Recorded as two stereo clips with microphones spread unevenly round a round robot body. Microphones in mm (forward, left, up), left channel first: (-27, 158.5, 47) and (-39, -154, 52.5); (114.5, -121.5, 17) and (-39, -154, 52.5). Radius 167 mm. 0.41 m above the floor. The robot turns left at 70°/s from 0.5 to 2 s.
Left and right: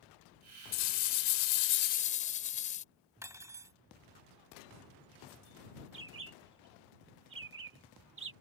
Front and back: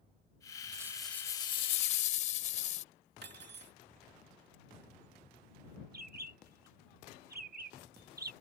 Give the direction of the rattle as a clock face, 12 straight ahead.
8 o'clock.